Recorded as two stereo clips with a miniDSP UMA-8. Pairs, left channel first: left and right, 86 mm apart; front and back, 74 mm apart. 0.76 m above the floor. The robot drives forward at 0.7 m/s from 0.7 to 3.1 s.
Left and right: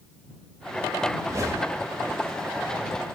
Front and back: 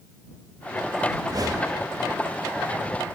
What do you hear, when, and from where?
1.2 s a whoosh: 140° right, 1.6 m; by 1.9 s 150° right, 2.0 m